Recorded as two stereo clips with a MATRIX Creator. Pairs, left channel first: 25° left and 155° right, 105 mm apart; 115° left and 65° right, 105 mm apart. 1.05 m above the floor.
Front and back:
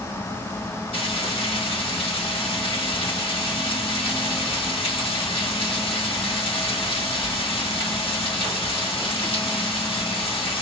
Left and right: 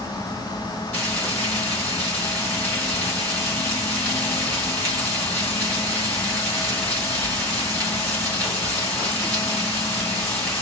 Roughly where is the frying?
Ahead left.